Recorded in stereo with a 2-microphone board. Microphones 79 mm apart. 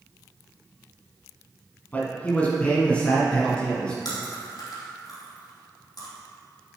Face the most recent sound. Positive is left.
turn(degrees=65)  # may be behind; listen again after turning